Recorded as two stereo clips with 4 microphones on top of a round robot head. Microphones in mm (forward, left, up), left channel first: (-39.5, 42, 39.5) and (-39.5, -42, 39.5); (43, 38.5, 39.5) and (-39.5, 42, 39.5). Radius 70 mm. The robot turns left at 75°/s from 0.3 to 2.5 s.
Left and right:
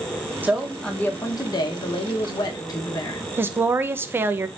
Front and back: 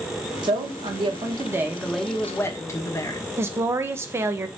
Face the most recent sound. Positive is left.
turn(degrees=-140)